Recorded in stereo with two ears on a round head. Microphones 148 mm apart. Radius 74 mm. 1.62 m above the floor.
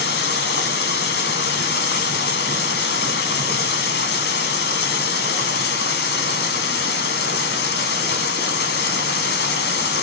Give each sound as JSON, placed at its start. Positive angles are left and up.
{"t": 0.0, "sound": "running water", "side_deg": 70, "distance_m": 1.0}